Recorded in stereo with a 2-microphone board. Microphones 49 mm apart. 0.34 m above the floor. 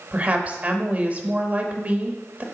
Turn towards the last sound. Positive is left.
turn(degrees=-30)  # may be behind; listen again after turning